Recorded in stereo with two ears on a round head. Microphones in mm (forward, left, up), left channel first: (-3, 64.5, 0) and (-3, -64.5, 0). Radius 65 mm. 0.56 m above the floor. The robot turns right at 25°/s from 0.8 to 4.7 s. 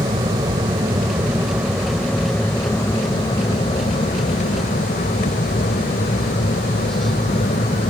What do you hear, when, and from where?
0.0 s an aircraft: 30° right; by 7.9 s 70° left